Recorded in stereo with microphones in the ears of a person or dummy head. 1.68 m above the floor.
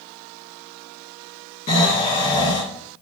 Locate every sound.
1.7 s snoring: 30° left (ahead or behind), 1.6 m